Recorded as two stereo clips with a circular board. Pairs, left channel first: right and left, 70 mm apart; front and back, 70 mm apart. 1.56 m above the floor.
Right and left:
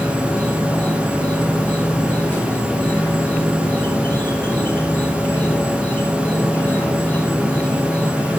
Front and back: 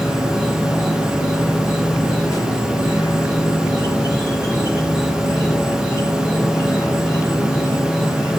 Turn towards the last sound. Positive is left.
turn(degrees=-25)